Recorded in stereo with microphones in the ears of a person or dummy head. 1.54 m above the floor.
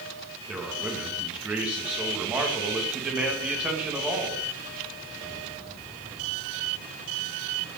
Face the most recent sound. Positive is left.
turn(degrees=-10)  # may be behind; listen again after turning